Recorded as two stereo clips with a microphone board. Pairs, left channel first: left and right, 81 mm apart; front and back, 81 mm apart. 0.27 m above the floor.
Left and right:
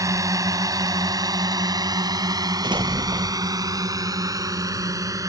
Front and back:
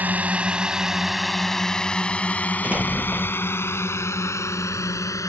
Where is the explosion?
110° right.